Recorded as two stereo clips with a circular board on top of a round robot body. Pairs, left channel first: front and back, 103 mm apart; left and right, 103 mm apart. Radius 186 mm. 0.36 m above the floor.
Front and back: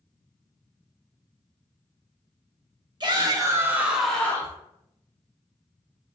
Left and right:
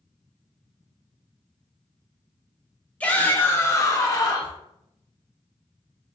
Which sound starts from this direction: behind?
A shout, at 3.0 s.